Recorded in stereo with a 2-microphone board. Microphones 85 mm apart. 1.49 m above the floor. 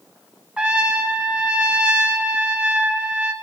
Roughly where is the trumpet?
Centre.